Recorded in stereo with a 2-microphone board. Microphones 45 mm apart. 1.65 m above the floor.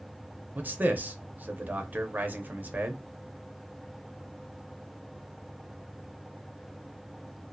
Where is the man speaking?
40° right (ahead or behind), 0.6 m.